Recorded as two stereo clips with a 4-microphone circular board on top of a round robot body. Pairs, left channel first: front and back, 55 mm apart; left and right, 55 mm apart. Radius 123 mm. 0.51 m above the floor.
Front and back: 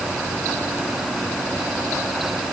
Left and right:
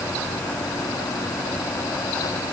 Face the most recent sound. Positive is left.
No sound to turn to.